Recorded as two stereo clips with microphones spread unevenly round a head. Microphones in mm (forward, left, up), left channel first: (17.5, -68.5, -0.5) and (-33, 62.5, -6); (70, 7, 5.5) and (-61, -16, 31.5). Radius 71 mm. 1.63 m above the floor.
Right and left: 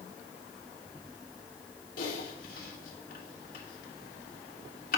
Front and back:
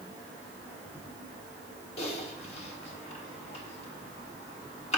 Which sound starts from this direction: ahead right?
Typing on a keyboard, at 2.0 s.